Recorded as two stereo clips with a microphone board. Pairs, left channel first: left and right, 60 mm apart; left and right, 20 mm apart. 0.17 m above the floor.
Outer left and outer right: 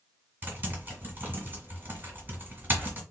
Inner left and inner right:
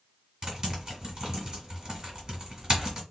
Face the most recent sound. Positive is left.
turn(degrees=-30)  # may be behind; listen again after turning